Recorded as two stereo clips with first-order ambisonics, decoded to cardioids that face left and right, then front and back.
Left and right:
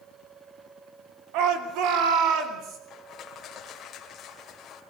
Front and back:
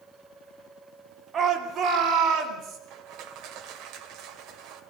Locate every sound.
1.3 s a shout: 115° right, 2.5 m; by 2.8 s 135° right, 4 m
2.9 s crushing: 145° left, 2.5 m